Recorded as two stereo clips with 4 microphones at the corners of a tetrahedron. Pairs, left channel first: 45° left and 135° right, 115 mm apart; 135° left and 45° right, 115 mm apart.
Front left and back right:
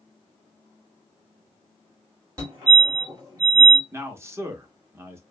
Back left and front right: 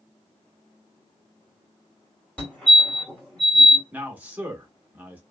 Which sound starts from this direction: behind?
A fire alarm, at 2.4 s.